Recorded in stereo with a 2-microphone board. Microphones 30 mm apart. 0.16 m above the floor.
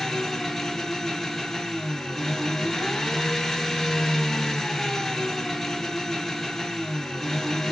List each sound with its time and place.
0.0 s an engine running: 5° left (ahead or behind), 1.1 m